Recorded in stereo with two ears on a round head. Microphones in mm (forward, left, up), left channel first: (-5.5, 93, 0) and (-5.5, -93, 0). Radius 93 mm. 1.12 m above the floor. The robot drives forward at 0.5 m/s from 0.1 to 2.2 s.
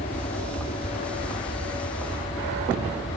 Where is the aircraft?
30° left (ahead or behind).